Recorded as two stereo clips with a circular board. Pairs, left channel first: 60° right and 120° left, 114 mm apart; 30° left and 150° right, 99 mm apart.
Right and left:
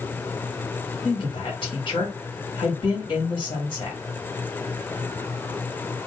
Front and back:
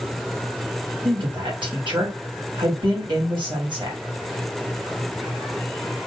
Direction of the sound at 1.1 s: 110° right.